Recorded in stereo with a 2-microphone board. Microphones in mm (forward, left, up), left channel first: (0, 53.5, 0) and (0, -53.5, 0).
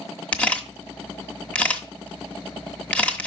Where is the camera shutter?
10° left (ahead or behind), 0.9 m.